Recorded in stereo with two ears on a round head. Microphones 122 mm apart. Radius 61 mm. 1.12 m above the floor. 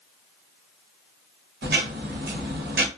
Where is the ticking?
80° right, 0.8 m.